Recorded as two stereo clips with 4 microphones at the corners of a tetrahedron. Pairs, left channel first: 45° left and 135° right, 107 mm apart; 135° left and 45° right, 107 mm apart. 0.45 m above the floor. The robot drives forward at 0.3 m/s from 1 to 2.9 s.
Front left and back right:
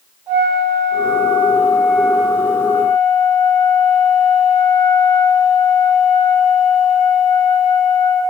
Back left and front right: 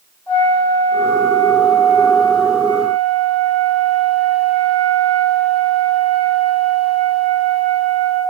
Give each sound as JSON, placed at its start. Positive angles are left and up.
{"t": 0.3, "sound": "a flute", "azimuth_deg": -170, "distance_m": 1.2}